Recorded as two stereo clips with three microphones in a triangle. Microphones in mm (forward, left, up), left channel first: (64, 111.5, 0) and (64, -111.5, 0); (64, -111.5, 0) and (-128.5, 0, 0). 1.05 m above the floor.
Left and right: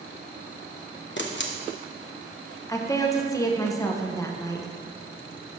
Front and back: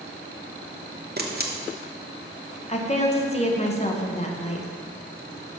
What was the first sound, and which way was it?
A camera shutter, 115° left.